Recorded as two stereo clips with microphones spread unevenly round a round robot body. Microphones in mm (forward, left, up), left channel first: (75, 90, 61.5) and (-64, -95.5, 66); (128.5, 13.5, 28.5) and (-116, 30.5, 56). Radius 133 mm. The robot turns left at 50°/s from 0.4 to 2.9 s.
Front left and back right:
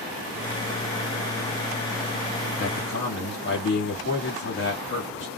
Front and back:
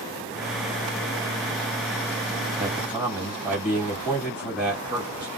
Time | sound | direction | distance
2.6 | a man speaking | 105° left | 1.8 m